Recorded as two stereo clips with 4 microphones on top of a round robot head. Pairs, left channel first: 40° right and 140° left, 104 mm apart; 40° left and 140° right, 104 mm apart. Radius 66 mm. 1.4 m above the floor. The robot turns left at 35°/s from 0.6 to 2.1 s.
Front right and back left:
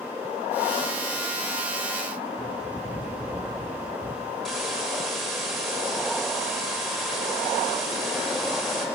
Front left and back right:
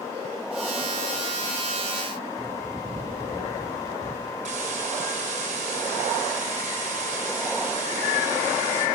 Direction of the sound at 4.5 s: 130° right.